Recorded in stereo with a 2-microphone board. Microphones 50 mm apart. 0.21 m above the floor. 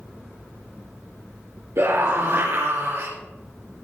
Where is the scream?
60° right (ahead or behind), 3.5 m.